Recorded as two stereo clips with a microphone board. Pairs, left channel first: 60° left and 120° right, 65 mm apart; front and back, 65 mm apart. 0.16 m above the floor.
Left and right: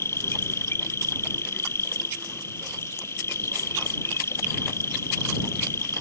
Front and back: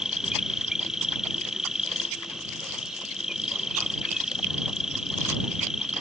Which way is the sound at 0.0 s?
100° left.